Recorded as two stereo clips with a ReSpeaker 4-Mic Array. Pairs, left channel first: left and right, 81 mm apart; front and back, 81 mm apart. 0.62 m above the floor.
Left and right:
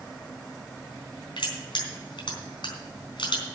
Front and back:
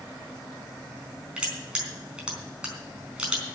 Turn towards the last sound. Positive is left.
turn(degrees=100)